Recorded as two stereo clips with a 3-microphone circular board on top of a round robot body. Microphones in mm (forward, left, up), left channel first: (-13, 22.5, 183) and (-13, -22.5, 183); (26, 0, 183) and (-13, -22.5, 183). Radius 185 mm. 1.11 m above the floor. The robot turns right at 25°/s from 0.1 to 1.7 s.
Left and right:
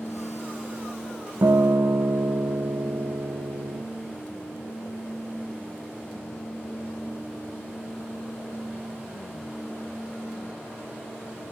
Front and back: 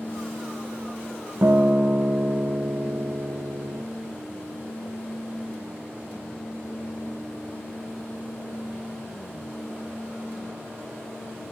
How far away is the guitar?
About 0.5 m.